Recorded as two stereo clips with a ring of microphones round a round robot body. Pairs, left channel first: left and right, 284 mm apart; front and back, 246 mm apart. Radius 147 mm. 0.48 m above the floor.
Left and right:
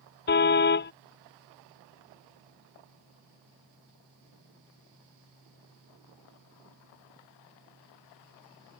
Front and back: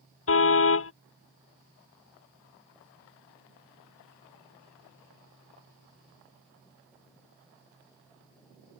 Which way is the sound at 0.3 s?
35° left.